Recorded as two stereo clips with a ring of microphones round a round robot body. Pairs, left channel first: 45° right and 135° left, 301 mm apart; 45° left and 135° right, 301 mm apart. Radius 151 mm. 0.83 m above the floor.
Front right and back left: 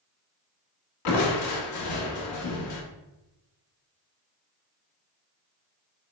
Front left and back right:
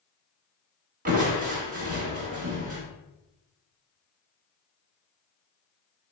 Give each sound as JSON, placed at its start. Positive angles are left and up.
{"t": 1.1, "sound": "crushing", "azimuth_deg": -75, "distance_m": 1.1}